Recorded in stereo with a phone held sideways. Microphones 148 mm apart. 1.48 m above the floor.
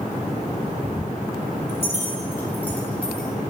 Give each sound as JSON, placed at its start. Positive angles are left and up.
{"t": 1.7, "sound": "keys jangling", "side_deg": 20, "distance_m": 3.5}